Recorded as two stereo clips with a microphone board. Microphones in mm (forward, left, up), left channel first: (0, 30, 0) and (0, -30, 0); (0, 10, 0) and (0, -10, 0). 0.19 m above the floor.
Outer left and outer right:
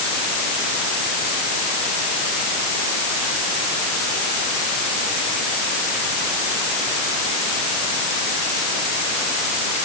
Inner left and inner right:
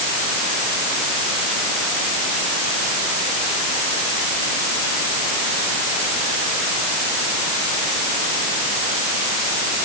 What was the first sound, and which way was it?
Only background noise.